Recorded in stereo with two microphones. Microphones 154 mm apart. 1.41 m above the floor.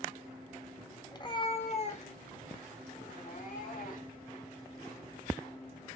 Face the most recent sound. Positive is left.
turn(degrees=65)  # may be behind; listen again after turning